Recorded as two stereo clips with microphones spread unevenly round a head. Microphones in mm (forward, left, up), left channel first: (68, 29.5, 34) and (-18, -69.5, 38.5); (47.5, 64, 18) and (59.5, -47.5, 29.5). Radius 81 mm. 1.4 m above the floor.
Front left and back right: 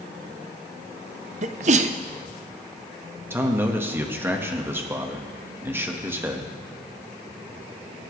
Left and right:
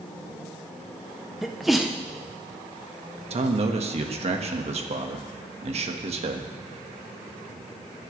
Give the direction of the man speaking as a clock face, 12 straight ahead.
2 o'clock.